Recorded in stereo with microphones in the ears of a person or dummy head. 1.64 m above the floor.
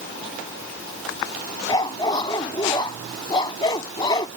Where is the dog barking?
25° left (ahead or behind).